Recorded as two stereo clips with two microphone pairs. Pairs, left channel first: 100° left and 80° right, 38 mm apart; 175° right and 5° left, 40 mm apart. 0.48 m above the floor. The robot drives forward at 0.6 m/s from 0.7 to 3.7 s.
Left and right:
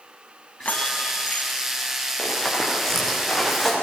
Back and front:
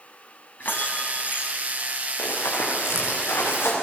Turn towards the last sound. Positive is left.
turn(degrees=-170)